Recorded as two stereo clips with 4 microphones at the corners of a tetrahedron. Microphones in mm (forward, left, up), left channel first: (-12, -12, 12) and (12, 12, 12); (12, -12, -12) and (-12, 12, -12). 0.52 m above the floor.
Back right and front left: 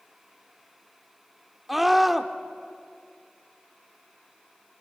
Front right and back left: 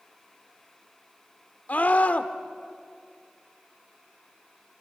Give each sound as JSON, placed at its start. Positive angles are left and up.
{"t": 1.7, "sound": "a scream", "azimuth_deg": -35, "distance_m": 1.1}